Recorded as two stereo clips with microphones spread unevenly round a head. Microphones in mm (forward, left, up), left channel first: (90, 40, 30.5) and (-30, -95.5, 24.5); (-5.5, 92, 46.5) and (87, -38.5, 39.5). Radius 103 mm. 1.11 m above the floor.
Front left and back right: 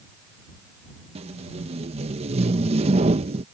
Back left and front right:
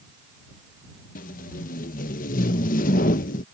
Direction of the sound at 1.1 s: 170° left.